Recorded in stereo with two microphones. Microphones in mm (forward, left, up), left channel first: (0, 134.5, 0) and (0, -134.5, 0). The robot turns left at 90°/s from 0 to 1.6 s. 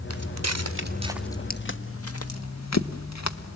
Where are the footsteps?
60° right (ahead or behind), 1.4 m; by 3.6 s 75° left (ahead or behind), 1.2 m.